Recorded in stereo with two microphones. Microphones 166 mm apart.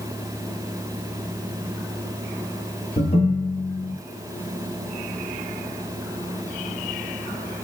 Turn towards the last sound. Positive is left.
turn(degrees=40)  # may be behind; listen again after turning